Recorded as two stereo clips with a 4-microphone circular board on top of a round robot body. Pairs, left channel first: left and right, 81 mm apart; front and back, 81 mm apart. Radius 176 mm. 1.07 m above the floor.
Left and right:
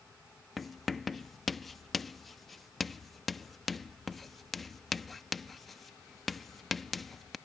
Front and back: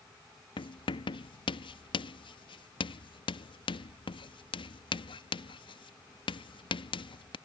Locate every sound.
0.6 s writing: 5° left